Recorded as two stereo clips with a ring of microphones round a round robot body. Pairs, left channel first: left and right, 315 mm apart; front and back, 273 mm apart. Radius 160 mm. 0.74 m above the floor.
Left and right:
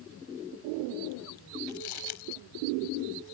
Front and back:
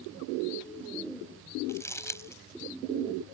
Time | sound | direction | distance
1.7 | crumpling | 80° left | ?